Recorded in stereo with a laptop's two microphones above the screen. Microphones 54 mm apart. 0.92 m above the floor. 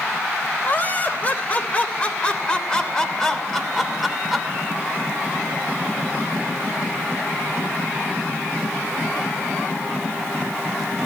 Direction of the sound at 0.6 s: 35° left (ahead or behind).